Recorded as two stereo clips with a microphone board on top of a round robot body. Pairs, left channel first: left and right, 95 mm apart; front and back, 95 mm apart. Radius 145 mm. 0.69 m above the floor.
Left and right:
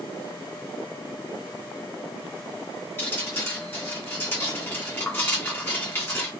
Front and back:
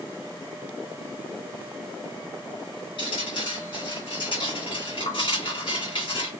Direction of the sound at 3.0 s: 25° left.